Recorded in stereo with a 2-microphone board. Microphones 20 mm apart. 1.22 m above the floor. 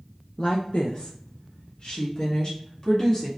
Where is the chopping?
No chopping in this recording.